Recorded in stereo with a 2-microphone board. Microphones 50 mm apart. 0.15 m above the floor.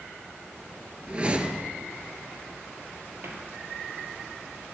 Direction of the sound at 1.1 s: 25° right (ahead or behind).